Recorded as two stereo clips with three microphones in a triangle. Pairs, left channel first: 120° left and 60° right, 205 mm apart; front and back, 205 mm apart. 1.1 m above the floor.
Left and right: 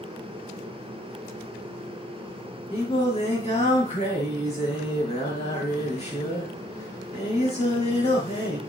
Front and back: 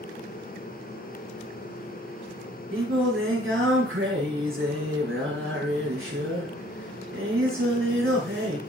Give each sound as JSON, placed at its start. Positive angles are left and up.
{"t": 2.7, "sound": "singing", "azimuth_deg": 180, "distance_m": 6.0}